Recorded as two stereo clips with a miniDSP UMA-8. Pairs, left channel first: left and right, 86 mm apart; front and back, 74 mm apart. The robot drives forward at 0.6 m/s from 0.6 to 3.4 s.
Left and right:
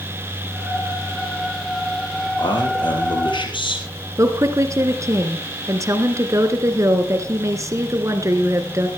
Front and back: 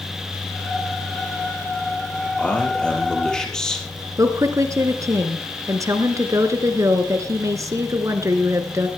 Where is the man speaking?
75° left, 5.5 m; by 3.9 s 80° left, 5.5 m.